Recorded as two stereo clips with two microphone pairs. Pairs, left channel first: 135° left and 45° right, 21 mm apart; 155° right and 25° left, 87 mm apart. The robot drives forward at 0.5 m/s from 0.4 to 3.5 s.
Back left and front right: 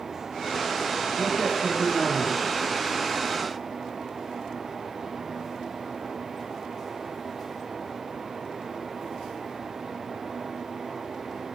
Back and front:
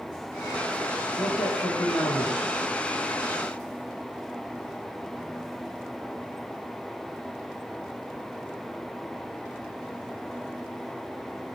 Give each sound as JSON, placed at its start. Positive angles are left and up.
{"t": 1.2, "sound": "a man speaking", "azimuth_deg": -115, "distance_m": 6.0}